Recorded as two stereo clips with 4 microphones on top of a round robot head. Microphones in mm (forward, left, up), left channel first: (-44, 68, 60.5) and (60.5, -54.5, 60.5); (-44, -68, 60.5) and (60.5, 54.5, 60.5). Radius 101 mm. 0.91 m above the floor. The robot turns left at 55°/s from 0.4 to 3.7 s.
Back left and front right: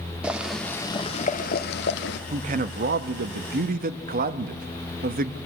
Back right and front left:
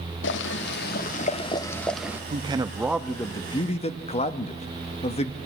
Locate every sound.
0.2 s boiling: 135° right, 1.2 m; by 2.2 s 130° left, 1.2 m
2.3 s a man speaking: straight ahead, 1.3 m; by 5.4 s 80° right, 1.3 m